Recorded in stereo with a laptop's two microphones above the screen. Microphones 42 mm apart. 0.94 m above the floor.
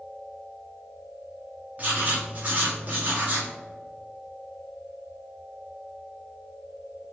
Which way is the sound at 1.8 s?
35° right (ahead or behind).